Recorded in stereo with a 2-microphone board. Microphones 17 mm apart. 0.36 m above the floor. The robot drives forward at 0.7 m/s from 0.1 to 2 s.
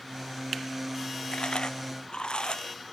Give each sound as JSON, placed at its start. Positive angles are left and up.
{"t": 1.3, "sound": "chewing", "side_deg": 80}